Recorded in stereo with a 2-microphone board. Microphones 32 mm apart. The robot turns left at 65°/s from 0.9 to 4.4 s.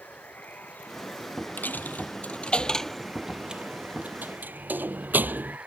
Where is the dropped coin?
75° left (ahead or behind); by 5.6 s 75° right (ahead or behind).